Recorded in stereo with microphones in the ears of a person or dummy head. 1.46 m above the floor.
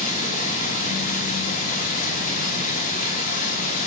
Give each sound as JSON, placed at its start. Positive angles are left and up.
{"t": 0.0, "sound": "running water", "side_deg": 45, "distance_m": 6.0}